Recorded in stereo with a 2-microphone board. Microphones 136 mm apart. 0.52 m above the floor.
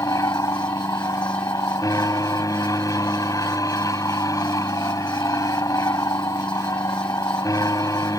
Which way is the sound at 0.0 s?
25° left (ahead or behind).